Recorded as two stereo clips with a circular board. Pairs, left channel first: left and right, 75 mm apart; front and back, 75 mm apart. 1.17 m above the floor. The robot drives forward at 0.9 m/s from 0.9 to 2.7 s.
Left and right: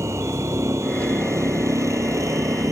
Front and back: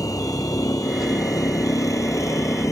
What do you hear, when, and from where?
0.0 s a vehicle: 40° right; by 2.7 s 45° right